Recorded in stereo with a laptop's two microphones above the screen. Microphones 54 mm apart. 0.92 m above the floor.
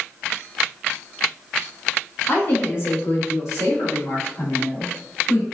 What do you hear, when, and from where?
2.3 s a woman speaking: 45° left (ahead or behind), 1.4 m; by 5.5 s 75° left (ahead or behind), 1.9 m